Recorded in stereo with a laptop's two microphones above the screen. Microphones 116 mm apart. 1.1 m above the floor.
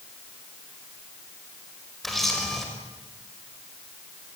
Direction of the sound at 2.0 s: Centre (ahead or behind).